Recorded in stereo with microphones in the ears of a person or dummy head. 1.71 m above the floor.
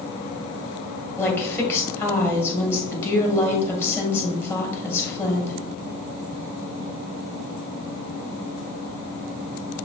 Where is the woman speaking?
15° left (ahead or behind), 1.9 m.